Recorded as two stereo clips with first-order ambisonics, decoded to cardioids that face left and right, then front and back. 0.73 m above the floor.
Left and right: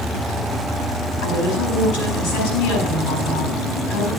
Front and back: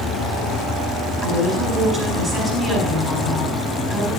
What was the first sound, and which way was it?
A woman speaking, 80° left.